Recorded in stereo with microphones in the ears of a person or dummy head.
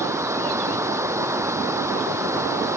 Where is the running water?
20° right (ahead or behind).